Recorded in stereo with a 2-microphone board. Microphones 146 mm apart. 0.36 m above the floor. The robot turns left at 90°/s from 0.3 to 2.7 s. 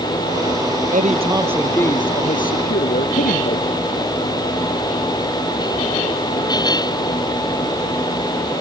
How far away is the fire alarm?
No fire alarm in this recording.